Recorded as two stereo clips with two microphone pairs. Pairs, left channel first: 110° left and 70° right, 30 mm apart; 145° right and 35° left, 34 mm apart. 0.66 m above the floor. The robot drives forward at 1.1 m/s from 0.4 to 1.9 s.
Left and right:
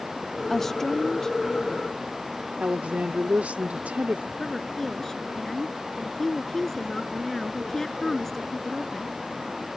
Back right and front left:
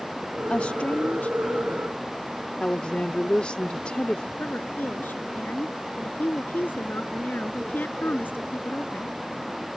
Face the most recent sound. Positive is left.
turn(degrees=-170)